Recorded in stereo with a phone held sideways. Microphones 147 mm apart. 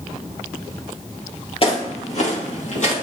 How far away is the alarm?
No alarm in this recording.